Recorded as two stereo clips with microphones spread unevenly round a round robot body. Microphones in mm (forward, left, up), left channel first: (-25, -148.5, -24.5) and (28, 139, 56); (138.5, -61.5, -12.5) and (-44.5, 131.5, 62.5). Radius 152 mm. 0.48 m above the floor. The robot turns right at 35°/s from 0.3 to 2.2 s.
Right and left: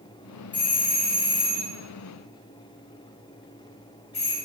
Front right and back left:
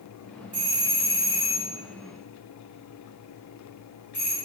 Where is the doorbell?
155° right, 1.8 m; by 4.3 s 100° right, 1.8 m.